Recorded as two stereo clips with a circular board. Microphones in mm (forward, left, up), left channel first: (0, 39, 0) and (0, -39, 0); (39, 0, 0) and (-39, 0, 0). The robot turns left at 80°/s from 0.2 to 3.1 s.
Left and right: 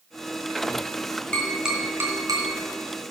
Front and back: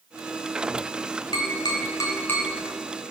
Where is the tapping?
15° left, 2.5 m; by 2.5 s 75° right, 2.5 m.